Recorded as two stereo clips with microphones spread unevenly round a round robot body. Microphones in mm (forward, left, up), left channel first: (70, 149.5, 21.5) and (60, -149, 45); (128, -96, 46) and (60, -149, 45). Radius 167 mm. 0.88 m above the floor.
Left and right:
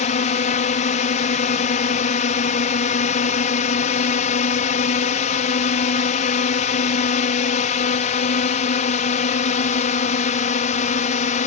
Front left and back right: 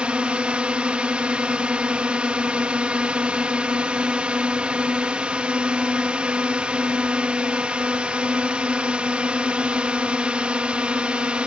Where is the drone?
145° left.